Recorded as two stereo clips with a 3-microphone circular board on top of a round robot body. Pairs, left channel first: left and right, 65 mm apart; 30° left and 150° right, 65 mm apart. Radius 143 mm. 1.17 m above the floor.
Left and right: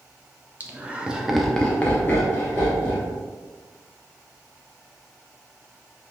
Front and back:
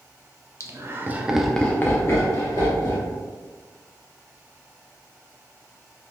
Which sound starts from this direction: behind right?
Laughter, at 0.6 s.